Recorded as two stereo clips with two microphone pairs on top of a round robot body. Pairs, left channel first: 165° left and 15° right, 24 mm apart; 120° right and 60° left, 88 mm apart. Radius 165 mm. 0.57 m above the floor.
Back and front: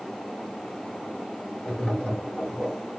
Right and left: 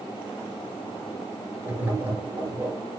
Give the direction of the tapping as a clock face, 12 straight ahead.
8 o'clock.